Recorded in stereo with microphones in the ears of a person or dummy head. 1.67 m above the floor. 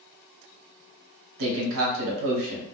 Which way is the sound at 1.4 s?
75° right (ahead or behind).